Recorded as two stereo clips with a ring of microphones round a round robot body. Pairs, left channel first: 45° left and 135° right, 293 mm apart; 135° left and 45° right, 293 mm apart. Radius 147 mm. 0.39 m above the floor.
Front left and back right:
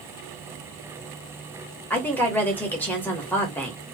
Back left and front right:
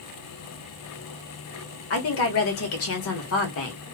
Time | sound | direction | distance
1.9 | a woman speaking | 125° left | 1.4 m